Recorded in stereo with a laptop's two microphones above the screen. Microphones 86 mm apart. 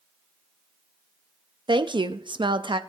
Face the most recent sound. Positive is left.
turn(degrees=-65)  # may be behind; listen again after turning